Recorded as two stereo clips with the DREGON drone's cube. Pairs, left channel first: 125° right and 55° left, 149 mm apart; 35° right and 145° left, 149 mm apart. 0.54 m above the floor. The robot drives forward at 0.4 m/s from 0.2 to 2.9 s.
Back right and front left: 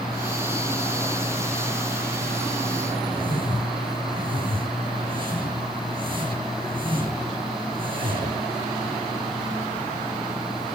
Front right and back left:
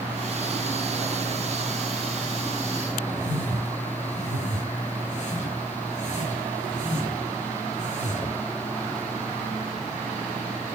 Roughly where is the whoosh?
Ahead.